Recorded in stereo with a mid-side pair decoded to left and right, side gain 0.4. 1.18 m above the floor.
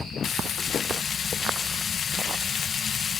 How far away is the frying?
About 0.6 m.